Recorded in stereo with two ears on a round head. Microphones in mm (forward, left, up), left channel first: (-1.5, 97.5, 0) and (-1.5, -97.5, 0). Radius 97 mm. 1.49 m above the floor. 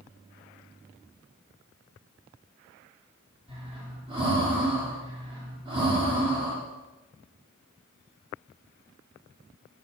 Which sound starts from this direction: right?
Breathing, at 3.5 s.